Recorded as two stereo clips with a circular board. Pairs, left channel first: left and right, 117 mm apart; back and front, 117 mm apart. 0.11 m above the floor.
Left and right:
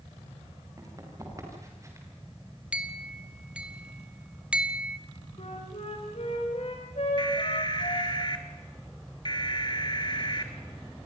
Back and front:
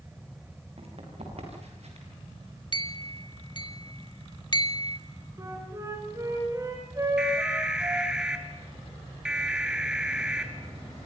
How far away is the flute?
About 7 m.